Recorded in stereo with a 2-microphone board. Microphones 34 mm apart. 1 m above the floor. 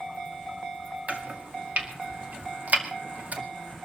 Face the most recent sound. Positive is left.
turn(degrees=-50)  # may be behind; listen again after turning